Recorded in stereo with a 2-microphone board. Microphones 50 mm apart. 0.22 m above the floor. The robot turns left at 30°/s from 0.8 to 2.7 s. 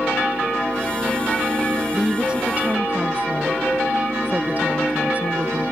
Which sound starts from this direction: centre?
A woman speaking, at 1.9 s.